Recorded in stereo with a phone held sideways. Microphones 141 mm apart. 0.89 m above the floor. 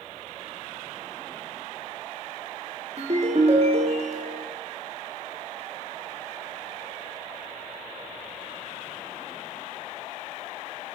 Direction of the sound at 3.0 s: 50° right (ahead or behind).